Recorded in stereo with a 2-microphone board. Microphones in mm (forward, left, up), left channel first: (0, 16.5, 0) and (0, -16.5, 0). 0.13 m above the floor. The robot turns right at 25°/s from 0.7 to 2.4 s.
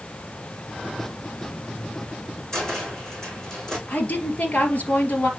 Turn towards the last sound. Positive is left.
turn(degrees=50)  # may be behind; listen again after turning